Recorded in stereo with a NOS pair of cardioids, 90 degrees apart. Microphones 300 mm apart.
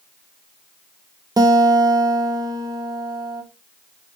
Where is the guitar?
15° right, 1.2 m.